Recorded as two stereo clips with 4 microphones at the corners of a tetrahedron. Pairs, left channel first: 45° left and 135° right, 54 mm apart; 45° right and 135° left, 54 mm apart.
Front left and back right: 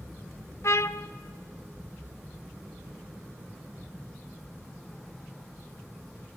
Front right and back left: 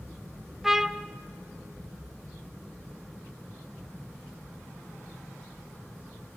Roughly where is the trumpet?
Ahead left.